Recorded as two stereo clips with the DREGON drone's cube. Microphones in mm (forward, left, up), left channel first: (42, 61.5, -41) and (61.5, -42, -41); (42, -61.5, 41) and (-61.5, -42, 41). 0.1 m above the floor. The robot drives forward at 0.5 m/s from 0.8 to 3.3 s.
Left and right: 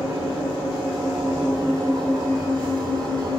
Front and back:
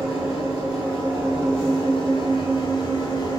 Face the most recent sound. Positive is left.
turn(degrees=-55)